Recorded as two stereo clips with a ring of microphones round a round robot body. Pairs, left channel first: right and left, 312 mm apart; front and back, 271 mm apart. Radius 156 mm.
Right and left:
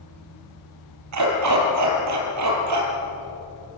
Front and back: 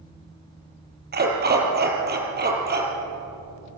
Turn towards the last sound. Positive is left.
turn(degrees=125)